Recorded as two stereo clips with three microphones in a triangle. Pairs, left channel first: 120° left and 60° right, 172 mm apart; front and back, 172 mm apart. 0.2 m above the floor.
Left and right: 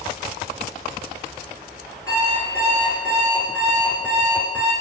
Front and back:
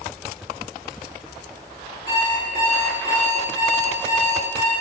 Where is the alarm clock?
165° right, 1.7 m.